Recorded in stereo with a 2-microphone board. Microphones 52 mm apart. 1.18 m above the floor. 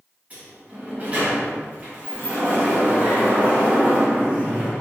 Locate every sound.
0.3 s a sliding door: 30° right (ahead or behind), 1.3 m